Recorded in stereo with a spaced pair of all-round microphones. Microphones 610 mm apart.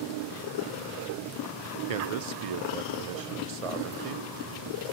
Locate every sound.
1.9 s a man speaking: 65° right (ahead or behind), 0.6 m